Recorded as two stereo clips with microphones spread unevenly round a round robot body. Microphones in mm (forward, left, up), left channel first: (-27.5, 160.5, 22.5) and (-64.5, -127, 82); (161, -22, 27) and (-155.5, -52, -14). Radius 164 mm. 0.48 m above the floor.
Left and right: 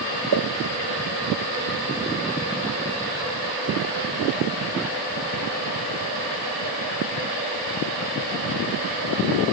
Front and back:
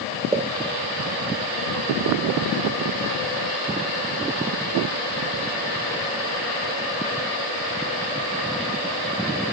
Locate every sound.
0.3 s a pop: 105° right, 0.8 m